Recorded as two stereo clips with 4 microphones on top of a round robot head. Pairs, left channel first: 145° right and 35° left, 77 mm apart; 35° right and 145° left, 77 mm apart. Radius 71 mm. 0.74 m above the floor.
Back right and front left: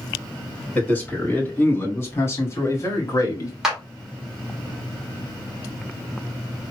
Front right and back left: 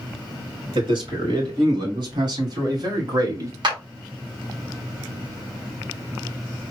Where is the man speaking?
145° left, 3 m; by 3.5 s straight behind, 1.9 m.